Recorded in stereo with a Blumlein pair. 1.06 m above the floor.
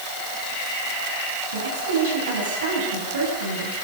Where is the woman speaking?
65° right, 8 m.